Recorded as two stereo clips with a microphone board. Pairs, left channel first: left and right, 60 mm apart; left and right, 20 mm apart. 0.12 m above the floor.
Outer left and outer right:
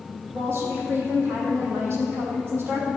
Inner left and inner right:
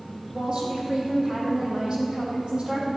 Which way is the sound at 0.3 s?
45° right (ahead or behind).